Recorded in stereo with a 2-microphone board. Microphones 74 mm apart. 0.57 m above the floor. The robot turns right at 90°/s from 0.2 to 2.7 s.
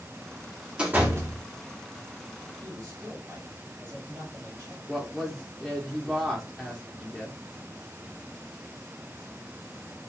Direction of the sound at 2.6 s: 45° right (ahead or behind).